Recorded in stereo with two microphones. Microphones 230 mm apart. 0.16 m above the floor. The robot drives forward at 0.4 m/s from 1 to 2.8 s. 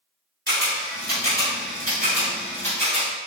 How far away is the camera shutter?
About 0.9 m.